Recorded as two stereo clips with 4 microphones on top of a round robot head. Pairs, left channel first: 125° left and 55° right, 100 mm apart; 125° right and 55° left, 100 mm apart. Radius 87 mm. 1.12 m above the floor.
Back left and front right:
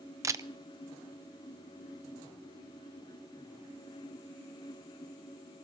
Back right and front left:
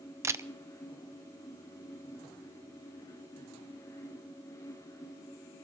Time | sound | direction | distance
0.2 | a camera shutter | straight ahead | 0.6 m